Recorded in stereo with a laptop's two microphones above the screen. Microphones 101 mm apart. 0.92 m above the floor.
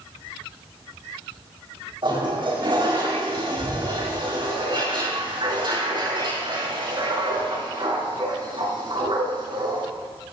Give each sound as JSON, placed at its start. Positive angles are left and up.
{"t": 2.0, "sound": "a toilet flushing", "side_deg": -55, "distance_m": 7.5}